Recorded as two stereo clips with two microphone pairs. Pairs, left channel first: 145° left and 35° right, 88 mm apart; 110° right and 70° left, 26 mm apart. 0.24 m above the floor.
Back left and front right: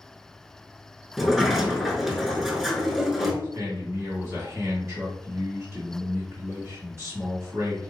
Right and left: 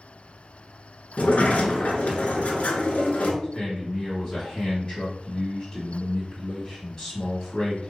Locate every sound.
1.2 s a sliding door: 120° right, 0.7 m
3.4 s a man speaking: 60° right, 1.7 m